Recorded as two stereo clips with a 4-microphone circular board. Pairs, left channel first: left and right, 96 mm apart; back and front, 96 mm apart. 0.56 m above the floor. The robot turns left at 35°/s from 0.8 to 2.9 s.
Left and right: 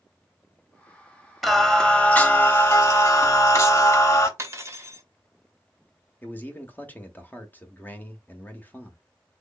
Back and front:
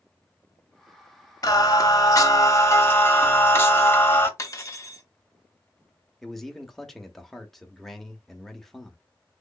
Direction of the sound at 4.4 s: 135° right.